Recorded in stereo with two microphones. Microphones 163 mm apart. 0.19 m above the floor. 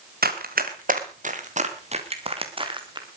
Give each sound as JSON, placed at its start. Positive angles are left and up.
{"t": 0.2, "sound": "running footsteps", "side_deg": -70, "distance_m": 3.0}